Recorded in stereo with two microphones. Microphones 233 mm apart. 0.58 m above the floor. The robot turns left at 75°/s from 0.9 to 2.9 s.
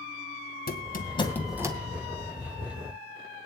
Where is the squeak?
45° left (ahead or behind), 2 m; by 1.8 s 20° right (ahead or behind), 2 m.